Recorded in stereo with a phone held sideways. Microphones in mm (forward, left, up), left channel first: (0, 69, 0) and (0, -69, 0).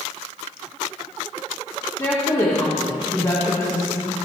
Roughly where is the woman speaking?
Left.